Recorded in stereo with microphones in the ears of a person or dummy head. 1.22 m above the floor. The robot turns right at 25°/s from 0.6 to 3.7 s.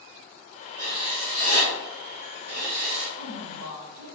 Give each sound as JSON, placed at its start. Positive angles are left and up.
{"t": 0.8, "sound": "writing", "azimuth_deg": -165, "distance_m": 0.9}
{"t": 3.2, "sound": "a woman speaking", "side_deg": -60, "distance_m": 1.1}